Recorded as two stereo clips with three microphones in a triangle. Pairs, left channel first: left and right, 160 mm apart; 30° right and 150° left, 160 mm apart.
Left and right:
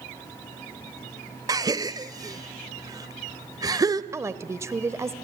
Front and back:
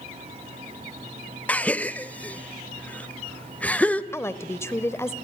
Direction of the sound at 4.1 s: 65° right.